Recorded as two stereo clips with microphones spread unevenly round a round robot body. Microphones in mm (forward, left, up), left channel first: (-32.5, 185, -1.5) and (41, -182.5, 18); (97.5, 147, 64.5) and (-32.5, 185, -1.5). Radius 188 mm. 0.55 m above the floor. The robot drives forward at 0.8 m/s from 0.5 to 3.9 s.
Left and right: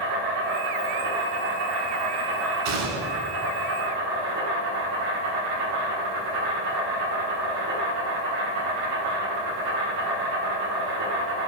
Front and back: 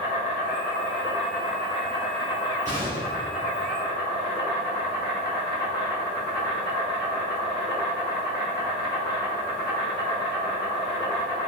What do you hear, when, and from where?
0.0 s an insect: 70° right, 3 m; by 11.5 s 120° right, 3.5 m
2.6 s a gunshot: 85° right, 1.8 m; by 3.4 s 105° right, 1.9 m